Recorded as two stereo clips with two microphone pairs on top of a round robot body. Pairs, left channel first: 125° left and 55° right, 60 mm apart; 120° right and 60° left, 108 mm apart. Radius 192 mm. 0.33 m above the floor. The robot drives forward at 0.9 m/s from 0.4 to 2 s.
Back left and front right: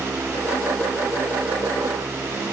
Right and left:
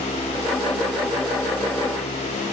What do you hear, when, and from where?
Only background noise.